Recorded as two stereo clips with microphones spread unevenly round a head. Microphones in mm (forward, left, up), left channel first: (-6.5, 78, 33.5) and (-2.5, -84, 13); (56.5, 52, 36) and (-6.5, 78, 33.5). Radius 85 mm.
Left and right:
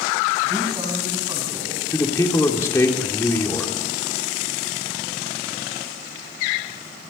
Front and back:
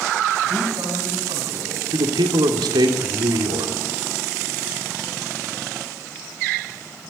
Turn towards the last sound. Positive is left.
turn(degrees=165)